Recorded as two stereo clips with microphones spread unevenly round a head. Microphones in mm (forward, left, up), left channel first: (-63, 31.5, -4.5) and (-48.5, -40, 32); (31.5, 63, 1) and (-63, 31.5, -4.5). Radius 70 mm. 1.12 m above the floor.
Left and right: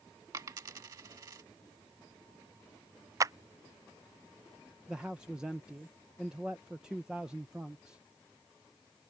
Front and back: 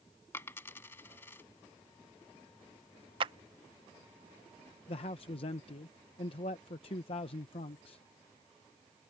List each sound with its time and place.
0.3 s a dropped coin: 50° right
3.2 s a clap: 140° right
4.9 s a man speaking: 25° left